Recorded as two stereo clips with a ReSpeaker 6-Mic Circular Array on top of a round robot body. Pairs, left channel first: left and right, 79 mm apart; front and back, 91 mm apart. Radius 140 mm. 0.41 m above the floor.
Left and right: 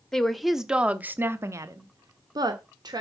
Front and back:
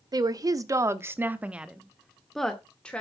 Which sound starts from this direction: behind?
A woman speaking, at 0.1 s.